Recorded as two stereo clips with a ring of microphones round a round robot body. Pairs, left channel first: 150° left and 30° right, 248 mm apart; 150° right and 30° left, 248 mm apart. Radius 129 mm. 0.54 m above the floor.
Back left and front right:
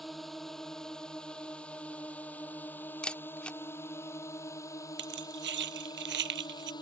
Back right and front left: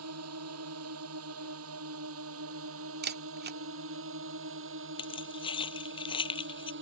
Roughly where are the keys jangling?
Right.